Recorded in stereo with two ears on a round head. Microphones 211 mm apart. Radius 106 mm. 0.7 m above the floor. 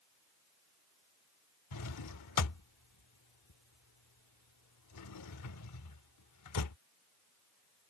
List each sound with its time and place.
1.7 s a drawer: 85° left